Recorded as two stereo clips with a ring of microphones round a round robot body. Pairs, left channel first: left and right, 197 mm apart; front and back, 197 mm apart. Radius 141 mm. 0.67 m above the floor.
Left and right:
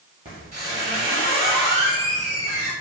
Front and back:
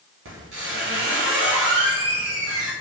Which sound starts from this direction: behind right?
A squeak, at 0.2 s.